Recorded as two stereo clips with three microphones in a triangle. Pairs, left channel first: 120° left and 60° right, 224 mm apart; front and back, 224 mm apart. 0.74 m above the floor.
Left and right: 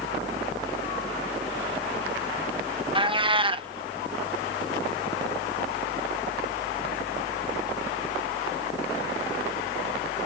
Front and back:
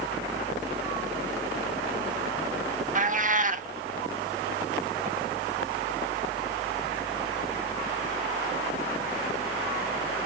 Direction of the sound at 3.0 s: 130° right.